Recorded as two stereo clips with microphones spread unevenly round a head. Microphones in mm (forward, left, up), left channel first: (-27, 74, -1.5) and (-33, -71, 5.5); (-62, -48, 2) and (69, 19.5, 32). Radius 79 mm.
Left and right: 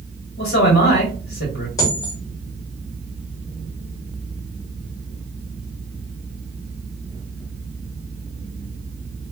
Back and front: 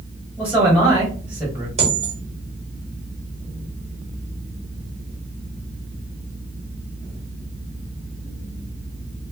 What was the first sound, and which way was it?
A man speaking, 110° left.